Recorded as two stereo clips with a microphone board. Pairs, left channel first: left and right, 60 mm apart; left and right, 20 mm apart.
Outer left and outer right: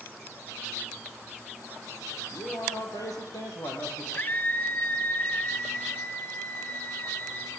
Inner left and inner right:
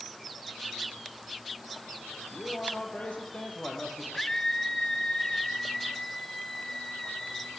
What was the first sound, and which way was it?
A man speaking, 70° left (ahead or behind).